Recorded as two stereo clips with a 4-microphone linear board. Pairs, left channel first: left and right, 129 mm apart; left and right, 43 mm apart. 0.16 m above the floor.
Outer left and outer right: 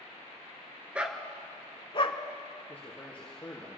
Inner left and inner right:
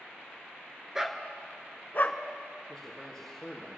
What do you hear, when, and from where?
0.9 s a dog barking: 10° right (ahead or behind), 1.0 m; by 2.2 s 50° left (ahead or behind), 0.8 m
2.7 s a man speaking: 10° left (ahead or behind), 3 m